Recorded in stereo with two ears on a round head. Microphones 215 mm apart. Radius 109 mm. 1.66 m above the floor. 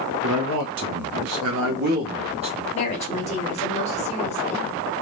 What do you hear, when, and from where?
0.2 s a man speaking: 60° right (ahead or behind), 0.8 m; by 2.6 s 20° right (ahead or behind), 1.1 m
2.7 s a woman speaking: 30° left (ahead or behind), 1.2 m